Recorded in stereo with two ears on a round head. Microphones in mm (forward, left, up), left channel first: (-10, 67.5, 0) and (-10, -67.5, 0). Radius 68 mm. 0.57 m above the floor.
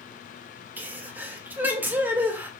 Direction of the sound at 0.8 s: 15° right (ahead or behind).